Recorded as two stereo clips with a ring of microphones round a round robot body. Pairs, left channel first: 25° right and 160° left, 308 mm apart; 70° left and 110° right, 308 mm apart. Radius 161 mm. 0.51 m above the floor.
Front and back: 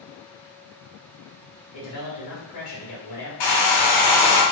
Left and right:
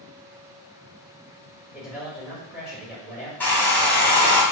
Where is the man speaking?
25° right, 1.9 m.